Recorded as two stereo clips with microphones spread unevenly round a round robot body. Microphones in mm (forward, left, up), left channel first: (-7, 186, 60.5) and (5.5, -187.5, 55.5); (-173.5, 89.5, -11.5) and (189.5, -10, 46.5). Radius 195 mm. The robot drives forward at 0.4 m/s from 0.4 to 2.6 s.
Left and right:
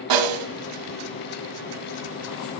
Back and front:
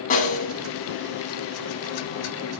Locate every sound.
0.1 s a snare drum: 125° right, 1.2 m